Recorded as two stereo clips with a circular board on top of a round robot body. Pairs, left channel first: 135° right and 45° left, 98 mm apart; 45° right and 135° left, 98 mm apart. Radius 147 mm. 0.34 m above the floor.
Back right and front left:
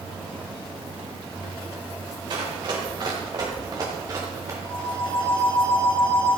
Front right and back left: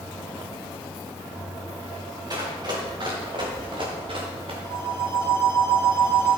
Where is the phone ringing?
10° left, 5.5 m.